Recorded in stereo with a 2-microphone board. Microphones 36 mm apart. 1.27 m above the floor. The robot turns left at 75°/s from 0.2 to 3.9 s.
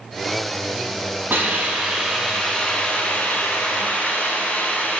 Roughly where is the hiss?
Right.